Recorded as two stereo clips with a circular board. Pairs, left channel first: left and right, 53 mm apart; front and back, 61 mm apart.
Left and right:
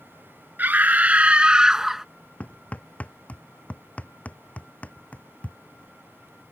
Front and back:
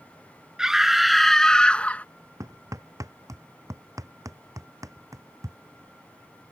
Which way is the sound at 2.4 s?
155° left.